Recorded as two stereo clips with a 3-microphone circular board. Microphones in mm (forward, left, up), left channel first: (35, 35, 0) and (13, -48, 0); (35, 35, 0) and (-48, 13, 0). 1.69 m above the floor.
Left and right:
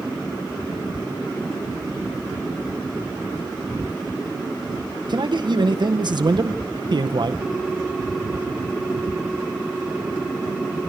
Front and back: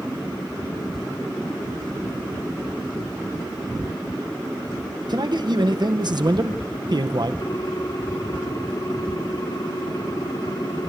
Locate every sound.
5.1 s a man speaking: 135° right, 1.5 m
7.4 s a ringtone: 20° right, 4.5 m